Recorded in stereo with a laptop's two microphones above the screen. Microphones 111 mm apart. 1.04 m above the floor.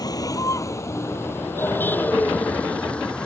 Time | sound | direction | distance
0.0 | a vehicle | 35° left (ahead or behind) | ?